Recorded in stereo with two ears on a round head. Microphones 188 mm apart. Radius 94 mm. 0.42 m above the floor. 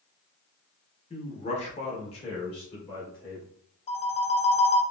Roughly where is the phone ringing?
Left.